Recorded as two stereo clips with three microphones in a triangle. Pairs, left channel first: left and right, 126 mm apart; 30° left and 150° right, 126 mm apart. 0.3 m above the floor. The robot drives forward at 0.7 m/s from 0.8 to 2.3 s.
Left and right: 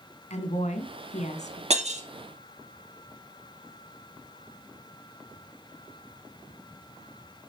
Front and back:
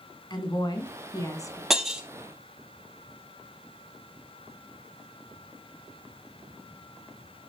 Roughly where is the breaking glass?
Ahead right.